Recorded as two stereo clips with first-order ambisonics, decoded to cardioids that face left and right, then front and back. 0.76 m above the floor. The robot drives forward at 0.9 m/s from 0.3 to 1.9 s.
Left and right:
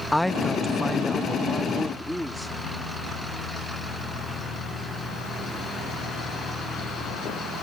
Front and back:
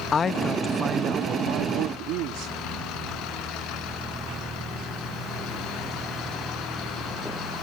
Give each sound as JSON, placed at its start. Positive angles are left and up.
{"t": 0.1, "sound": "a man speaking", "azimuth_deg": 10}